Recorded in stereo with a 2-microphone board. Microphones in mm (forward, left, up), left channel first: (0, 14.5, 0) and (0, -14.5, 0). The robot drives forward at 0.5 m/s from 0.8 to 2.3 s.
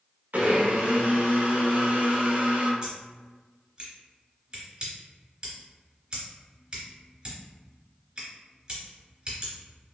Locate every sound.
0.3 s a blender: 70° right (ahead or behind), 1.0 m; by 2.7 s 65° right (ahead or behind), 1.0 m
2.8 s scissors: 25° right (ahead or behind), 1.8 m